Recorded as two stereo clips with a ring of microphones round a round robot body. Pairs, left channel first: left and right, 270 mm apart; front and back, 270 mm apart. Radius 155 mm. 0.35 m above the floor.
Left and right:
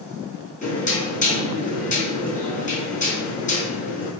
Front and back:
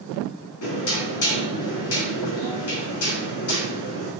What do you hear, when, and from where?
0.6 s knocking: 30° left, 4.5 m